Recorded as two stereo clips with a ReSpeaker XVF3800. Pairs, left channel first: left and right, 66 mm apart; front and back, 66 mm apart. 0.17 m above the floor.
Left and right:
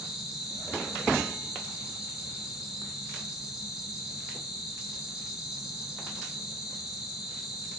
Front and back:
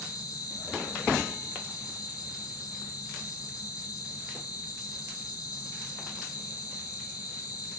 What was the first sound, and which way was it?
An insect, 10° right.